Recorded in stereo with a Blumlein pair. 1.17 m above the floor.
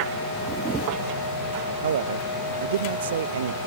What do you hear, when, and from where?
0.5 s a camera shutter: 25° right
1.8 s a man speaking: 60° right